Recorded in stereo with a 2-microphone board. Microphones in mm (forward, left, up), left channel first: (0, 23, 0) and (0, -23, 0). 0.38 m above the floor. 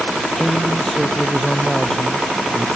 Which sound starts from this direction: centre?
A man speaking, at 0.3 s.